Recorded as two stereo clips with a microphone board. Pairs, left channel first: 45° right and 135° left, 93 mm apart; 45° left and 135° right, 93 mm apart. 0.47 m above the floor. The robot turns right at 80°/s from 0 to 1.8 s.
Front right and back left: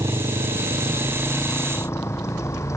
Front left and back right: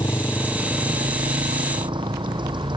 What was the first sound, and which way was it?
A motorcycle, 90° left.